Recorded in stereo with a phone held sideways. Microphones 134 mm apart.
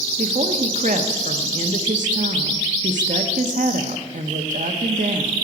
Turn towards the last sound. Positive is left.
turn(degrees=-75)  # may be behind; listen again after turning